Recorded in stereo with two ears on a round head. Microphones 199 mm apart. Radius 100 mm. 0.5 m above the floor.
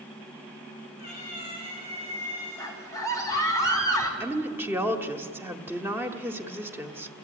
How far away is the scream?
About 4 m.